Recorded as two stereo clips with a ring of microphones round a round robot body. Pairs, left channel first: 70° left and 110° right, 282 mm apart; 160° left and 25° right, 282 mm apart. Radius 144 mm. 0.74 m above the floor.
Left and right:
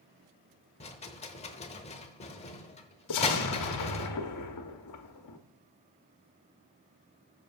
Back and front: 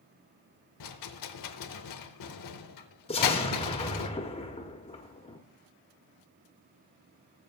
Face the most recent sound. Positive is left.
turn(degrees=90)